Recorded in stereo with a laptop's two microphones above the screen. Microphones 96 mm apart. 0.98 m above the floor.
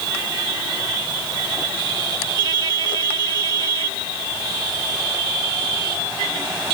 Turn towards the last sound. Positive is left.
No sound to turn to.